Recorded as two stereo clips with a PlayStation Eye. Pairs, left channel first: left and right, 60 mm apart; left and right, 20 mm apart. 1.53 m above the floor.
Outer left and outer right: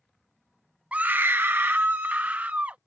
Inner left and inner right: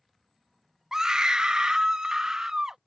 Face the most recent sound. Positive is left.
turn(degrees=-30)  # may be behind; listen again after turning